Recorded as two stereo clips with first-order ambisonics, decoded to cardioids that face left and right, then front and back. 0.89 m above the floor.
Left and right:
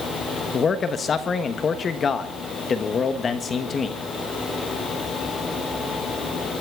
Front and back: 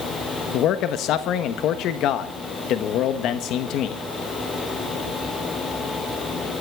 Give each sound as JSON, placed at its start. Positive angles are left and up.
{"t": 0.5, "sound": "a man speaking", "azimuth_deg": 25, "distance_m": 1.2}